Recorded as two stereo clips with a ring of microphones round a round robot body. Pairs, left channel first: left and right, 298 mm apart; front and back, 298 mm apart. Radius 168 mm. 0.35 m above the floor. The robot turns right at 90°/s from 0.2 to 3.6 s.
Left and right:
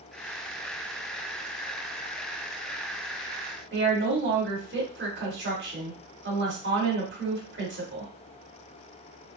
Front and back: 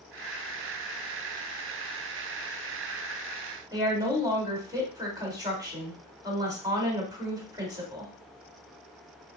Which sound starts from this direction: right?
A woman speaking, at 3.7 s.